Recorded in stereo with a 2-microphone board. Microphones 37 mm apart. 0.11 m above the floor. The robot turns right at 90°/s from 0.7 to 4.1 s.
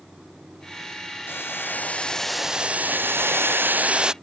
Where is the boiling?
80° left; by 4.1 s 25° right.